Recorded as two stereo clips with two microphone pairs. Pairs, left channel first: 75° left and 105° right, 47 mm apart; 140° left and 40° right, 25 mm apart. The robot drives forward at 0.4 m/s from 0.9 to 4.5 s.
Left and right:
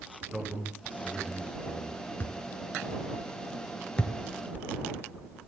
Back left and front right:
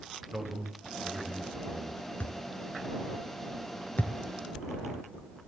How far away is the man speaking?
About 3.5 m.